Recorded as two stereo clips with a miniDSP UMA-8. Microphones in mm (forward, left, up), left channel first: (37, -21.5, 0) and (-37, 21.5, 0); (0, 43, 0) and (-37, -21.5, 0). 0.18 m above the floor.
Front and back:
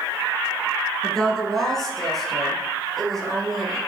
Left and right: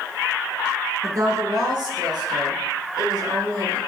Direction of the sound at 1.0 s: 110° right.